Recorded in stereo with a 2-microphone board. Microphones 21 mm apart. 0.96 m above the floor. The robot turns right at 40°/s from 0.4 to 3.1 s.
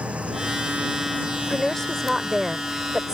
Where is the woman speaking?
140° left; by 3.1 s 155° right.